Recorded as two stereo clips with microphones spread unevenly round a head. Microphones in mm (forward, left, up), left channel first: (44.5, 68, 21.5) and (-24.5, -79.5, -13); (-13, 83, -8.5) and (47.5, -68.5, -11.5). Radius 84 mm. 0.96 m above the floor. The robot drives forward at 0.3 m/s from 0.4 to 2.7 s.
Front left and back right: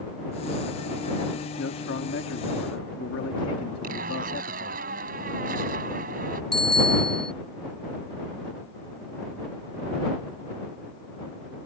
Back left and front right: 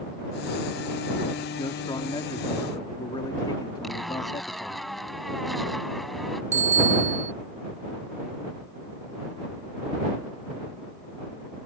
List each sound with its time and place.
1.6 s a man speaking: 45° left; by 4.8 s 50° left
3.8 s a zipper: 160° right
6.5 s a bicycle bell: 20° right